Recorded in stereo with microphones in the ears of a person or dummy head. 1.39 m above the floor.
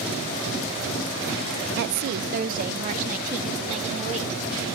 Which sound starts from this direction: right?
A woman speaking, at 1.8 s.